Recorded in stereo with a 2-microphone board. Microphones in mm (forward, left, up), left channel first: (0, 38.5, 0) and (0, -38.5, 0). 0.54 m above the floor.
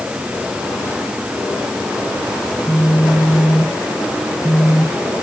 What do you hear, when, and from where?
2.5 s a phone buzzing: 10° right (ahead or behind), 4 m